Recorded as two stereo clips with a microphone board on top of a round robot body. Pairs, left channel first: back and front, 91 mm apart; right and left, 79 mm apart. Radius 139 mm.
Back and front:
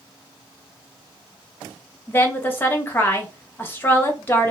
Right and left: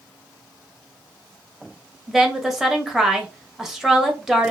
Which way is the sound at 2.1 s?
165° left.